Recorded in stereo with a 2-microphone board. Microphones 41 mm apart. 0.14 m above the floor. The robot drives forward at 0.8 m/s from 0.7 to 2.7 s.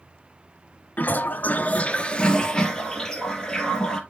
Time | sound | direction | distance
1.0 | a toilet flushing | 40° left (ahead or behind) | 0.6 m